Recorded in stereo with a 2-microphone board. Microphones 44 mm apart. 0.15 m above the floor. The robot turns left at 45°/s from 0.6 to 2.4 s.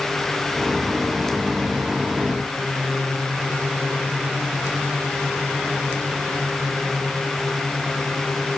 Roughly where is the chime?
I don't hear a chime.